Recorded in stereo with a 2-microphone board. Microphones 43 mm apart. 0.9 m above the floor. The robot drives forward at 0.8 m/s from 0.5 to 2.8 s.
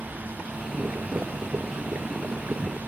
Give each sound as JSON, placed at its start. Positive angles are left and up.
{"t": 0.6, "sound": "boiling", "side_deg": -55}